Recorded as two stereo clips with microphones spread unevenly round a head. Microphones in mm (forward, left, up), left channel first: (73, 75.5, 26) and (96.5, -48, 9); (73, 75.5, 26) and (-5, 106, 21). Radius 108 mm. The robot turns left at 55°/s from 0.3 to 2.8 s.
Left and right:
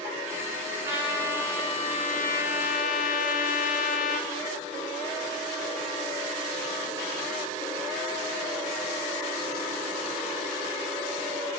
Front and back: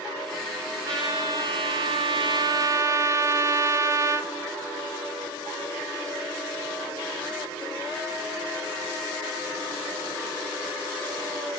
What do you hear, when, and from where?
0.8 s a trumpet: 145° right, 0.6 m; by 4.3 s 105° left, 0.6 m